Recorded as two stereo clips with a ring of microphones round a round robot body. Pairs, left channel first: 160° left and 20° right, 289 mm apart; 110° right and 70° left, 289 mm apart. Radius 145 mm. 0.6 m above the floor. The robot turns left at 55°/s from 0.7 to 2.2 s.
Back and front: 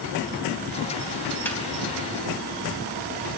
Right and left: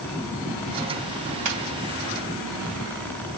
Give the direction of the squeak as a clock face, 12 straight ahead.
10 o'clock.